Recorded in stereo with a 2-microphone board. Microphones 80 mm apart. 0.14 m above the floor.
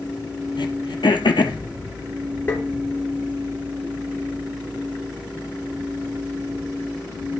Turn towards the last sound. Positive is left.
turn(degrees=25)  # may be behind; listen again after turning